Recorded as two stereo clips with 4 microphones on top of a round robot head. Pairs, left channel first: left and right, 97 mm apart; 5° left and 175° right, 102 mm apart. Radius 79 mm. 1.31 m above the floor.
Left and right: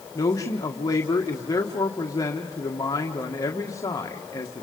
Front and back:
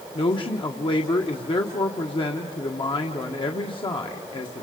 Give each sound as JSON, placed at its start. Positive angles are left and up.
{"t": 0.1, "sound": "a man speaking", "azimuth_deg": 35, "distance_m": 1.7}